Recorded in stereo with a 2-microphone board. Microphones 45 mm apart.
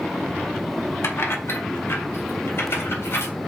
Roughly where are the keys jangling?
Left.